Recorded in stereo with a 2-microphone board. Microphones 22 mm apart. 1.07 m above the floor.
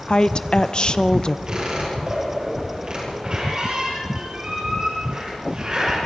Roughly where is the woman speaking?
Left.